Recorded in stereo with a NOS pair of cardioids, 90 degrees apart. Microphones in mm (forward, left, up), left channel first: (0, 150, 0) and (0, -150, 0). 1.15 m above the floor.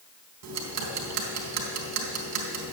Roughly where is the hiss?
No hiss in this recording.